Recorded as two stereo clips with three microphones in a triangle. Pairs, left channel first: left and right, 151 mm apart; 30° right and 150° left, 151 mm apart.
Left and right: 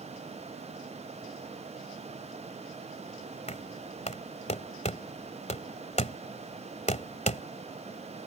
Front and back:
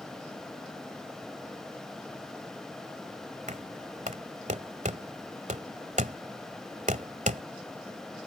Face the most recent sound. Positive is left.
turn(degrees=125)